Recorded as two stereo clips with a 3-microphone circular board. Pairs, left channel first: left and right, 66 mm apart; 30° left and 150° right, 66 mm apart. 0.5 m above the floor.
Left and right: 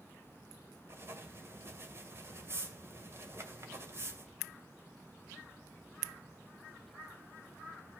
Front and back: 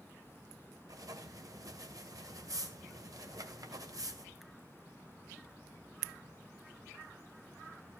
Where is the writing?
135° right, 2 m.